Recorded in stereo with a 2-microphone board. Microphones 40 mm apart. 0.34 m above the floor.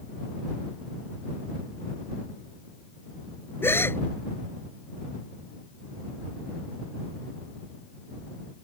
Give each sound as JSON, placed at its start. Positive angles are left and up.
{"t": 3.6, "sound": "a gasp", "side_deg": 80}